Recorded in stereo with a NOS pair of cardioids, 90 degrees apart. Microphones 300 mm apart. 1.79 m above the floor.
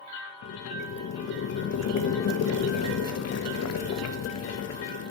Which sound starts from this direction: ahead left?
Boiling, at 0.4 s.